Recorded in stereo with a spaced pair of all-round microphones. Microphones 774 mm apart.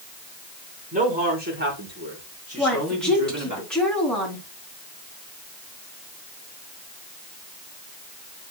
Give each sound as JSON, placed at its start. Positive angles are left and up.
{"t": 0.9, "sound": "a man speaking", "side_deg": -10, "distance_m": 5.5}
{"t": 2.6, "sound": "a woman speaking", "side_deg": 0, "distance_m": 4.0}